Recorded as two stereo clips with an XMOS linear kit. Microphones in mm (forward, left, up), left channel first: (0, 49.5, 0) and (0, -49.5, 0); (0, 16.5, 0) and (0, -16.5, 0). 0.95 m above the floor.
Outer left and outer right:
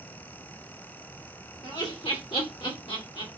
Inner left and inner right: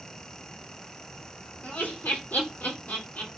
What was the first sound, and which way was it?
Laughter, 70° left (ahead or behind).